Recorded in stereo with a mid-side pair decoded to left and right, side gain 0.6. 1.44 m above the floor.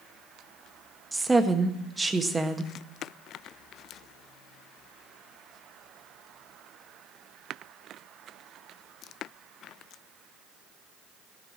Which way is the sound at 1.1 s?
15° right.